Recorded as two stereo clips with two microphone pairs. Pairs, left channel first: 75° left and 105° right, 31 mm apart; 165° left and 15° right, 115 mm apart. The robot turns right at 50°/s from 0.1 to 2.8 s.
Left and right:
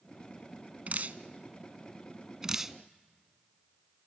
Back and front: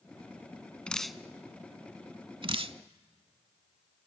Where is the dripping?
115° right, 0.5 m; by 2.8 s 20° right, 0.5 m.